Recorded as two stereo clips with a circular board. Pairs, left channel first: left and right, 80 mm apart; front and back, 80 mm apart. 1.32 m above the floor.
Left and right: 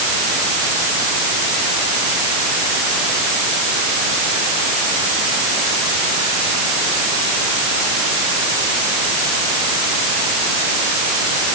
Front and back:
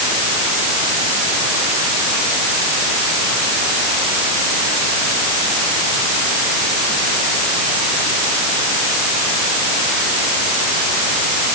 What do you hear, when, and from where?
Only background noise.